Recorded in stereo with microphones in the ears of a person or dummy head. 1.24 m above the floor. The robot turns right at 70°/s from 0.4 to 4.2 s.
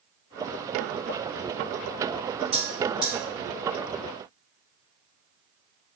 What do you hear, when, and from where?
2.5 s a bell: 30° left (ahead or behind), 1.8 m; by 3.1 s 15° right (ahead or behind), 1.8 m